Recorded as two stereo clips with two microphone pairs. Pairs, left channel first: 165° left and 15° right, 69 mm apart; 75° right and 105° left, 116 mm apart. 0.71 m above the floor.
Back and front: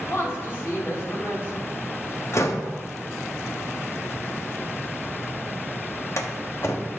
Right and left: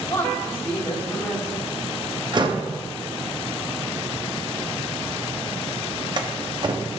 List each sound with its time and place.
0.1 s a woman speaking: 140° right, 3 m
2.3 s a door slam: 140° left, 0.9 m